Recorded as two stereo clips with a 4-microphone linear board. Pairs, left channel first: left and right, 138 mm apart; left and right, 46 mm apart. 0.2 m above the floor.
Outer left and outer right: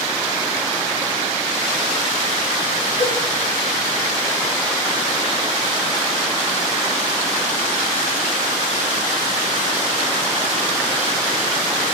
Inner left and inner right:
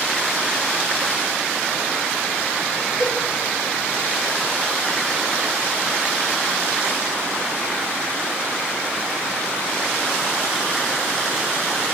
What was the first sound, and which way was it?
A cowbell, 35° right (ahead or behind).